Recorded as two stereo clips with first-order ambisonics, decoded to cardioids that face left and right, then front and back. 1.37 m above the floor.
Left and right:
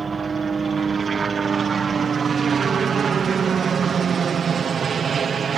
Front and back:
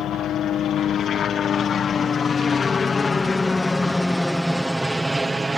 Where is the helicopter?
25° right; by 5.6 s 115° right.